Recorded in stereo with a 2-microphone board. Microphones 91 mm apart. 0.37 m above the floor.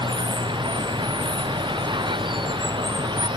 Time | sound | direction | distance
0.0 | running water | 70° right (ahead or behind) | ?